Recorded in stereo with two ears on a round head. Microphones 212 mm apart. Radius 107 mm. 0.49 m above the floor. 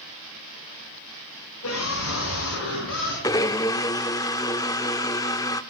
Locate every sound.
1.6 s a scream: 65° left (ahead or behind), 5.5 m; by 3.1 s 55° left (ahead or behind), 6.5 m
3.2 s a blender: 15° left (ahead or behind), 0.7 m